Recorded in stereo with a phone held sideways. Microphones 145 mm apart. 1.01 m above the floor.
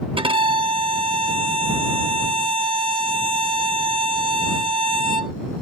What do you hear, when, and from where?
0.2 s a violin: 40° right (ahead or behind)